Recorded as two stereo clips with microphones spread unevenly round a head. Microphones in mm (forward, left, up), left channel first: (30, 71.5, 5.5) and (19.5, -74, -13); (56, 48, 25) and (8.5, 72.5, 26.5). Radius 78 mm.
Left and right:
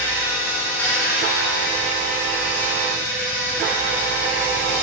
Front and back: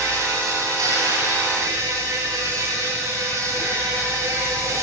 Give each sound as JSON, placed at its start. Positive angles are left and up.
{"t": 0.0, "sound": "an insect", "azimuth_deg": 165, "distance_m": 8.5}